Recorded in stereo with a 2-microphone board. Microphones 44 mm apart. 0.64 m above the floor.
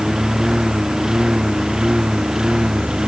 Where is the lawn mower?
10° right (ahead or behind); by 3.1 s 15° right (ahead or behind).